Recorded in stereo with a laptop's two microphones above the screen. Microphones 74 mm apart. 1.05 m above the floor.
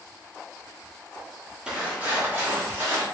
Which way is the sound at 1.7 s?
10° right (ahead or behind).